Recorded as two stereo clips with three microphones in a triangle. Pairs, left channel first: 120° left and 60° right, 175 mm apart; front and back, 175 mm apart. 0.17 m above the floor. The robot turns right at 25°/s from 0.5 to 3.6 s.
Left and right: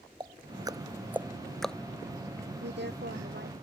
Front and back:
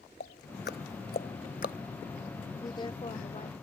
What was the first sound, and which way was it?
Ticking, 5° left.